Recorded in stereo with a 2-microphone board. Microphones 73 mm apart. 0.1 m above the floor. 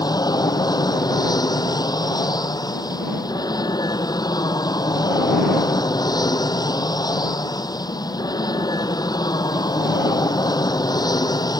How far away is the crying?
I don't hear crying.